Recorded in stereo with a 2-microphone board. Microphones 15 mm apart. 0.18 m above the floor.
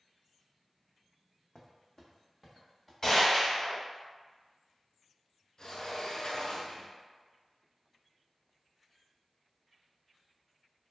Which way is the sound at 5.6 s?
50° left (ahead or behind).